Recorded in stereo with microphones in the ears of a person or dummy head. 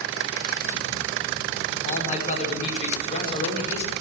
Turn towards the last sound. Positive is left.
turn(degrees=35)  # may be behind; listen again after turning